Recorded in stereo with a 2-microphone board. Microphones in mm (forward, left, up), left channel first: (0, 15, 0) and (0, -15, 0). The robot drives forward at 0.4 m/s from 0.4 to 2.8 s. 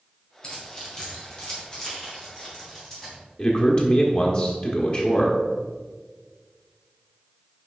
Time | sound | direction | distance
0.4 | keys jangling | 30° left (ahead or behind) | 2 m
3.4 | a man speaking | 40° left (ahead or behind) | 1.0 m